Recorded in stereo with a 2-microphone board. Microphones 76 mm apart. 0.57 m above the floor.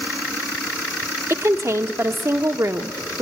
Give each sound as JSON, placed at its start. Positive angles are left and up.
{"t": 1.3, "sound": "a woman speaking", "side_deg": -40, "distance_m": 1.0}